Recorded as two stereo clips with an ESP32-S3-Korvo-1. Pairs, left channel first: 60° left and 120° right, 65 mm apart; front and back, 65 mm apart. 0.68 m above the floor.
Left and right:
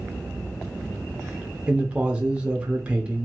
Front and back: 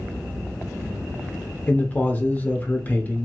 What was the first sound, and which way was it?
A man speaking, 55° right.